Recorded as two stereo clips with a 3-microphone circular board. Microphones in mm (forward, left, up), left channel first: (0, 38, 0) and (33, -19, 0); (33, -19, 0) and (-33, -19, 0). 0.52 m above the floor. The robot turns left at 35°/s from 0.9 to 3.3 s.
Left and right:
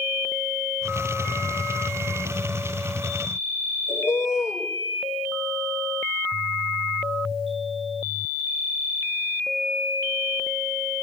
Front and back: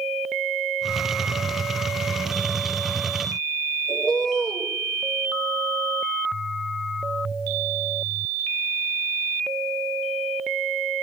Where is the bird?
75° left, 7 m.